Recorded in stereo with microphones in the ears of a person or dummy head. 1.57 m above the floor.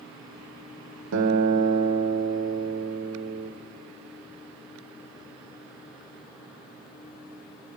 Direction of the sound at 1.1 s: 75° right (ahead or behind).